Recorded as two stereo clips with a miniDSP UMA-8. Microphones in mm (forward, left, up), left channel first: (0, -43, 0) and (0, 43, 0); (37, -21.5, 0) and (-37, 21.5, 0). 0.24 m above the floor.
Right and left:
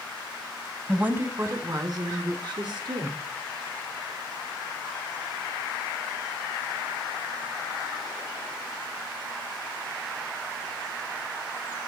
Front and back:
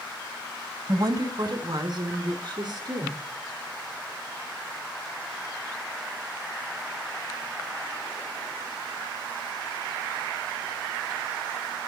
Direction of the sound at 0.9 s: 160° left.